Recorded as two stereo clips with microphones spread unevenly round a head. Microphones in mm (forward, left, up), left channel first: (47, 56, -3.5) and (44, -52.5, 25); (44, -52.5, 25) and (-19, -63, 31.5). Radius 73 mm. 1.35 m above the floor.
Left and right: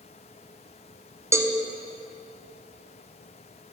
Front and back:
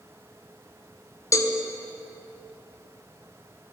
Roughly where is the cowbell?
Ahead.